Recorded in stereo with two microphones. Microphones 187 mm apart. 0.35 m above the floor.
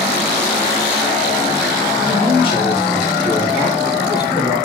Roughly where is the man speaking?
Left.